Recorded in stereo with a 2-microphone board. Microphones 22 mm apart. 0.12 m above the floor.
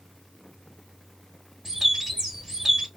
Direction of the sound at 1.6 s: 10° right (ahead or behind).